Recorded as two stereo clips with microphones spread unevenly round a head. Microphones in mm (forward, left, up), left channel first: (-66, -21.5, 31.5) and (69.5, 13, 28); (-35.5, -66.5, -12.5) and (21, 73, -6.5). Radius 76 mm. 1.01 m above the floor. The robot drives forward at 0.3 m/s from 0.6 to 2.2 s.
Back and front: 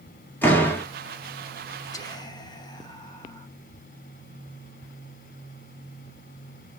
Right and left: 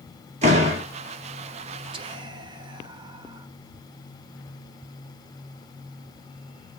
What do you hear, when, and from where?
0.4 s a door slam: 115° left, 1.6 m; by 0.8 s 120° left, 1.6 m
1.9 s whispering: 125° left, 0.9 m; by 3.5 s 130° left, 1.0 m